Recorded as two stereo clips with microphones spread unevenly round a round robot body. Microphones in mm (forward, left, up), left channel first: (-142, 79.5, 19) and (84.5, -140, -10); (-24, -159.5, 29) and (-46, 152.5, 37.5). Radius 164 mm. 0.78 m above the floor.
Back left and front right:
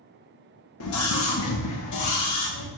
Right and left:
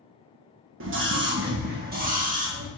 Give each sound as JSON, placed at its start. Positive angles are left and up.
{"t": 0.8, "sound": "a scream", "azimuth_deg": 115, "distance_m": 1.2}